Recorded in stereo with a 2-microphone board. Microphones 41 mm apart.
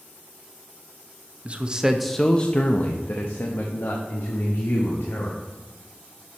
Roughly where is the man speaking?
Right.